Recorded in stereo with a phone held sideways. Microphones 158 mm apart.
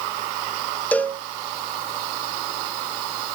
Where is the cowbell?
10° left (ahead or behind), 0.8 m.